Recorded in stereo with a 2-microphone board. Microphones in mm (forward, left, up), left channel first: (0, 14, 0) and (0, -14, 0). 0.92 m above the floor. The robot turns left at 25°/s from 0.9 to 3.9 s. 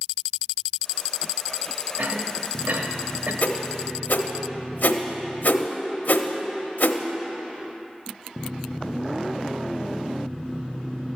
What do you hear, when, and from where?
2.0 s a cough: 70° right (ahead or behind), 1.3 m
3.4 s a whoosh: 75° left (ahead or behind), 0.7 m